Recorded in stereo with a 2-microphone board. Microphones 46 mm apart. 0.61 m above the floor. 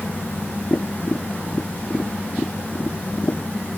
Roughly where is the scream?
I don't hear a scream.